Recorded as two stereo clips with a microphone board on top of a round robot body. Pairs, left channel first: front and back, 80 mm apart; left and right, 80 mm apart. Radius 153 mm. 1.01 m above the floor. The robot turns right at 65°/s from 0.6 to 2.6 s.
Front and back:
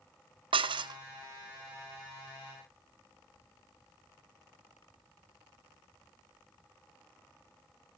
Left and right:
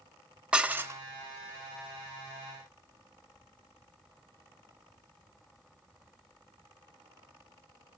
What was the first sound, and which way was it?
Dishes clattering, 165° right.